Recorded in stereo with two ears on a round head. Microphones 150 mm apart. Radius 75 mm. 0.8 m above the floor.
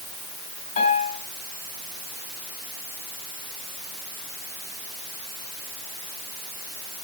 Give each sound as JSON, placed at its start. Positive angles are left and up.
{"t": 0.8, "sound": "a piano", "side_deg": 45, "distance_m": 6.5}